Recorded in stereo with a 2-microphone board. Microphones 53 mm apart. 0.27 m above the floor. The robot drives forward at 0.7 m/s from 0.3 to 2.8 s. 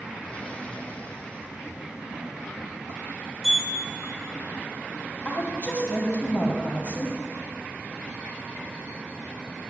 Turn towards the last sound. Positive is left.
turn(degrees=40)  # may be behind; listen again after turning